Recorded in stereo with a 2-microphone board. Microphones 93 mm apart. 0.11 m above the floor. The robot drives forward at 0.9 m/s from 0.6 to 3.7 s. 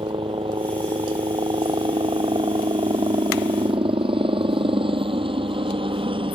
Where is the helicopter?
65° right (ahead or behind); by 6.4 s 70° right (ahead or behind).